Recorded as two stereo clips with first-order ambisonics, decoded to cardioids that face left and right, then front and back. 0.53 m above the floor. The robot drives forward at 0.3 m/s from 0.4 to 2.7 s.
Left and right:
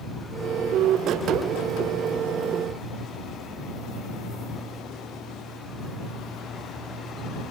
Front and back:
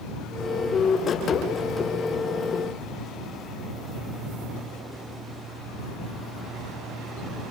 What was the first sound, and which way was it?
Only background noise.